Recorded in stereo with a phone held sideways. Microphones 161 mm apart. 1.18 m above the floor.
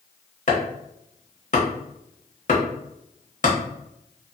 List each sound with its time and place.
0.5 s chopping: 50° left (ahead or behind), 1.0 m